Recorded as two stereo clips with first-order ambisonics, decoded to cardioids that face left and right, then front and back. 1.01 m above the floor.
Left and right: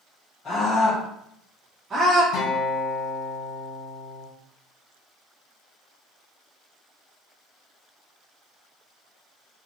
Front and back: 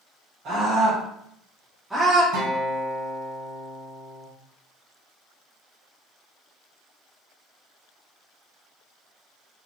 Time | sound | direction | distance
0.5 | a scream | 145° left | 1.0 m
2.3 | a guitar | 125° left | 1.5 m